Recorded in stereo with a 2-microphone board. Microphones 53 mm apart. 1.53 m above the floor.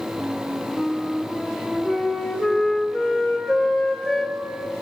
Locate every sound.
0.2 s a flute: centre (ahead or behind), 3 m